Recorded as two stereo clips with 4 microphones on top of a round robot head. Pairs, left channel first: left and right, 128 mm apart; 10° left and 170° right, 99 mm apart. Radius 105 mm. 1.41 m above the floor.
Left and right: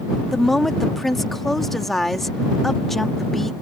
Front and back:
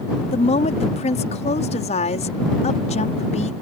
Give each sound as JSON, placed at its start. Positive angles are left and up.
{"t": 0.3, "sound": "a woman speaking", "azimuth_deg": 0}